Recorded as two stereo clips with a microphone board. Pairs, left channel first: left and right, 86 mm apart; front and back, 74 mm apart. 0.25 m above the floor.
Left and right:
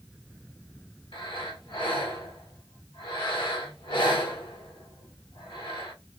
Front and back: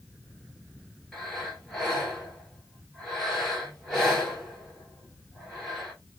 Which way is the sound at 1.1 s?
90° left.